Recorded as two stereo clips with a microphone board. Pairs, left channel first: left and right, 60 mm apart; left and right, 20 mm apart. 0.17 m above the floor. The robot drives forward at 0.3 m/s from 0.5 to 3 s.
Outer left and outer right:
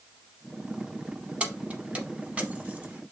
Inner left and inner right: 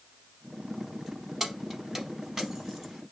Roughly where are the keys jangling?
Right.